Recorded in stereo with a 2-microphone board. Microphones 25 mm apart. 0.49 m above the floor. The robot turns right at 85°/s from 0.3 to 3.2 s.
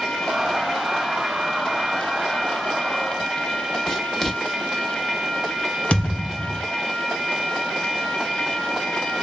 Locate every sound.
3.9 s writing: 15° left (ahead or behind), 0.7 m
5.9 s a thud: 60° left (ahead or behind), 1.1 m